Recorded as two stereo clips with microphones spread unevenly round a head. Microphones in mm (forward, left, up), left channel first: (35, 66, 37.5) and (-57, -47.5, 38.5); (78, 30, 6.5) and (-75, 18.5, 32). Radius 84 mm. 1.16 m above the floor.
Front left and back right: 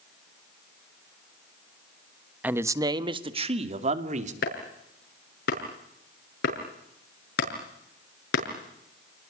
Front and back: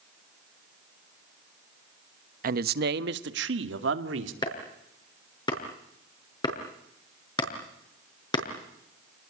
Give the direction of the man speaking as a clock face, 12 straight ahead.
7 o'clock.